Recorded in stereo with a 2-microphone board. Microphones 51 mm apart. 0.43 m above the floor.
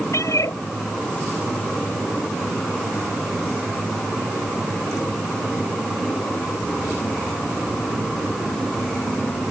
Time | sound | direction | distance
0.1 | a cat meowing | 80° left | ?